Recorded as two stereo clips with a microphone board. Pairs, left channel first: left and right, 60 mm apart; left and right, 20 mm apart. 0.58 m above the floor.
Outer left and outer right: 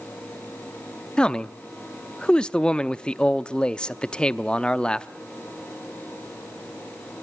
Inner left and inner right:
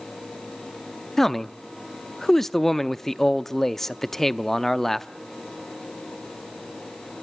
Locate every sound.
1.2 s a man speaking: 15° left (ahead or behind), 0.6 m